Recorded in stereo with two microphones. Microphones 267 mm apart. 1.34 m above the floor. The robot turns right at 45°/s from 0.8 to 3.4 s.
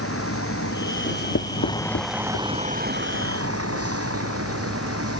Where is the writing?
50° left (ahead or behind); by 2.6 s 55° left (ahead or behind).